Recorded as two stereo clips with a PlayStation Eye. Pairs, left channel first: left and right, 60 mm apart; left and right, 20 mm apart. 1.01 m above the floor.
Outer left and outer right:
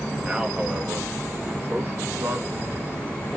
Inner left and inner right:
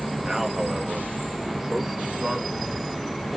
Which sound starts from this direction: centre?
A man speaking, at 0.2 s.